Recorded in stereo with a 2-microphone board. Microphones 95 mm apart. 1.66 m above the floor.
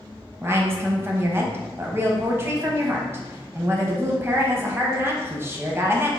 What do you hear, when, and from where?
0.4 s a woman speaking: 25° right (ahead or behind), 0.8 m